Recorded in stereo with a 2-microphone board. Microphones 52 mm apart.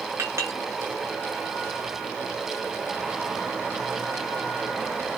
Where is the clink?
70° right (ahead or behind), 1.9 m.